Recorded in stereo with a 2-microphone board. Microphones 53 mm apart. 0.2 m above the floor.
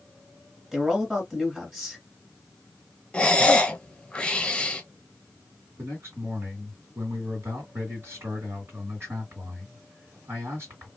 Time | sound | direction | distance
0.7 | a man speaking | 10° right (ahead or behind) | 1.5 m
3.1 | breathing | 15° left (ahead or behind) | 0.6 m
5.8 | a man speaking | 50° right (ahead or behind) | 2.5 m